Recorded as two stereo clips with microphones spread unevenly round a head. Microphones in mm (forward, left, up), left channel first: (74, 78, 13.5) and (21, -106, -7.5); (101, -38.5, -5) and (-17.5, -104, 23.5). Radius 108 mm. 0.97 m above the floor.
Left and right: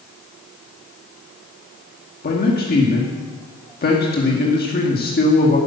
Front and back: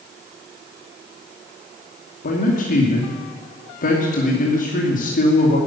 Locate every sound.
2.2 s a man speaking: 35° left, 2.5 m